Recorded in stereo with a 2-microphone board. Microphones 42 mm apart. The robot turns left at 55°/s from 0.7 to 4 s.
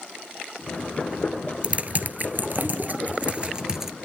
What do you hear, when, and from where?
1.6 s typing on a keyboard: 30° right (ahead or behind), 1.4 m; by 3.9 s 5° right (ahead or behind), 1.4 m